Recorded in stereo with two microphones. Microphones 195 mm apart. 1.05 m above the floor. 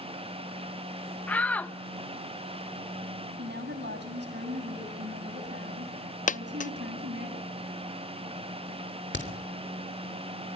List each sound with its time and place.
1.3 s a shout: 10° left (ahead or behind), 1.3 m
3.4 s a woman speaking: 60° right (ahead or behind), 8 m
6.3 s a dropped coin: 40° left (ahead or behind), 0.5 m
9.1 s a crack: 70° left (ahead or behind), 3 m